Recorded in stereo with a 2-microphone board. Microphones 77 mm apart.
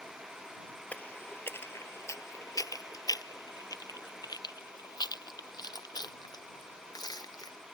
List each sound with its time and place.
0.9 s footsteps: 20° left (ahead or behind); by 7.6 s 50° left (ahead or behind)